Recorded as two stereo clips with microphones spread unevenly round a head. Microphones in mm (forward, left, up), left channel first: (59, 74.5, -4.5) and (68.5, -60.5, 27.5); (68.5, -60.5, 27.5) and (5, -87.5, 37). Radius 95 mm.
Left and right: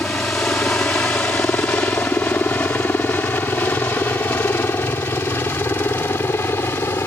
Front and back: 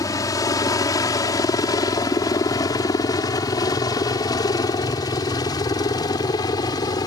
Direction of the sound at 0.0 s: 15° left.